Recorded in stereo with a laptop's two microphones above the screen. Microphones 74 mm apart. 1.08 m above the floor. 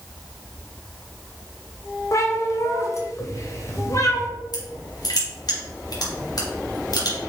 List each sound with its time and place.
2.1 s a cat meowing: 45° left (ahead or behind), 1.6 m
4.5 s crushing: 65° left (ahead or behind), 2.5 m